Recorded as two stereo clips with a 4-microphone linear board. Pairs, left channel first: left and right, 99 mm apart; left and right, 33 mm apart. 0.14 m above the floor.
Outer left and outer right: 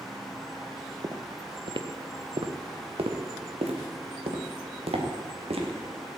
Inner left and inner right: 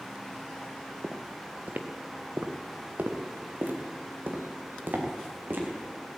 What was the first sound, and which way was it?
Footsteps, 40° right (ahead or behind).